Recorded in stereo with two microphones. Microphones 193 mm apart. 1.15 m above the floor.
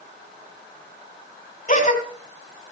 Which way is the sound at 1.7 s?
40° left (ahead or behind).